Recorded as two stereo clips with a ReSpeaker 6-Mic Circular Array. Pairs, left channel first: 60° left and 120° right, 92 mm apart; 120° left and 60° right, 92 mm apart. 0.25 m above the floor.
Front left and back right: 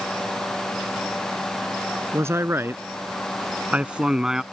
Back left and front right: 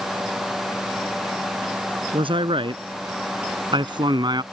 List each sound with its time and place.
2.1 s a man speaking: 60° right; by 4.4 s 35° right